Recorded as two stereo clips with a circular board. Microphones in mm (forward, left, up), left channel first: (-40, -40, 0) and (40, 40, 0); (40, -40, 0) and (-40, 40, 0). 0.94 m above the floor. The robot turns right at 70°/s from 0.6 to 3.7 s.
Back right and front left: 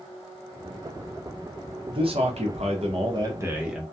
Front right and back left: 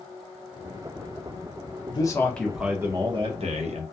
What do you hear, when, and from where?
1.9 s a man speaking: straight ahead, 0.8 m; by 3.8 s 130° left, 0.8 m